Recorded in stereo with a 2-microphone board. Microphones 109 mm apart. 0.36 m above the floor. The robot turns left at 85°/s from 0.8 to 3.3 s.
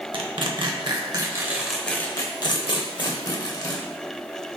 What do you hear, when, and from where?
0.1 s tearing paper: 50° right (ahead or behind), 0.7 m; by 3.8 s 35° left (ahead or behind), 0.7 m